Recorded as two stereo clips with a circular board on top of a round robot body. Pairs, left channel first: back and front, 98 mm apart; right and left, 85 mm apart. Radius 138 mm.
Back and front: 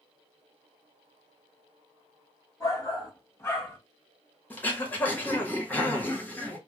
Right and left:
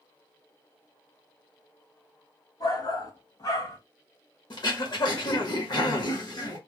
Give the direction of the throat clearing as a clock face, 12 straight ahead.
4 o'clock.